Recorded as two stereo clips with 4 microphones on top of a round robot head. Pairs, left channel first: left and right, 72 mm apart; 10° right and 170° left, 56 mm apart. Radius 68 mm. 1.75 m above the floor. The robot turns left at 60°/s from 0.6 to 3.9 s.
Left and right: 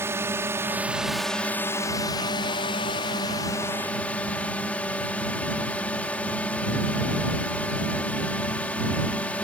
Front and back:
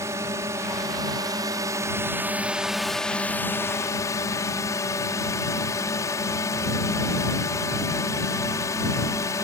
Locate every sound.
0.0 s a drone: 145° right; by 9.4 s 15° left